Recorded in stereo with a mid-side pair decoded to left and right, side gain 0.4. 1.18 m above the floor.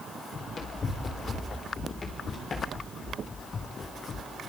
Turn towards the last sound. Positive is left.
turn(degrees=60)